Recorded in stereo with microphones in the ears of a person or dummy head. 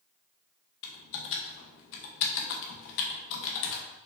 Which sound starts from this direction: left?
Typing on a keyboard, at 0.8 s.